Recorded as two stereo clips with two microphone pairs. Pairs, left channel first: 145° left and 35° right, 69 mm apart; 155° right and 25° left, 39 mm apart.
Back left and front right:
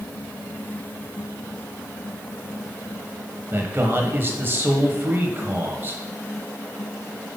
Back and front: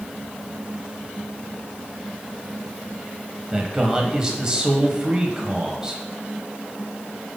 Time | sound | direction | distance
3.5 | a man speaking | 35° right | 1.0 m